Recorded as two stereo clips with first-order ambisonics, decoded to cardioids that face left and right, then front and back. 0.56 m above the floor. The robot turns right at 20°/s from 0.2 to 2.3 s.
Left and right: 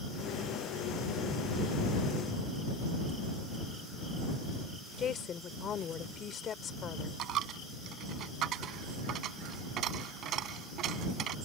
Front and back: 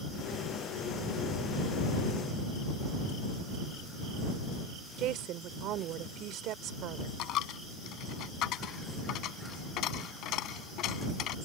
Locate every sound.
5.0 s a woman speaking: 145° left
7.2 s a dropped coin: 40° right